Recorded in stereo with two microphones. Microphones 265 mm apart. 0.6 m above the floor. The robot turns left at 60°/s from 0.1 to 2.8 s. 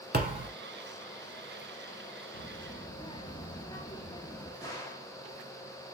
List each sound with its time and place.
0.1 s a thud: 40° right (ahead or behind), 1.0 m; by 0.5 s 20° right (ahead or behind), 1.0 m
2.3 s a child speaking: 30° left (ahead or behind), 0.6 m; by 4.5 s 15° left (ahead or behind), 0.6 m
4.6 s a gunshot: 15° left (ahead or behind), 1.0 m